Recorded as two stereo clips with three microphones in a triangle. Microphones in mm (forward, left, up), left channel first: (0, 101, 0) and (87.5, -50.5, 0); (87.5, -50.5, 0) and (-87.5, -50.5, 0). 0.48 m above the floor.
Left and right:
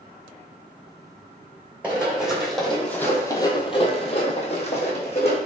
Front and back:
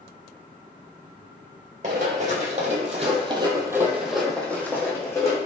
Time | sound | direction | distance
1.8 | running footsteps | 140° right | 1.0 m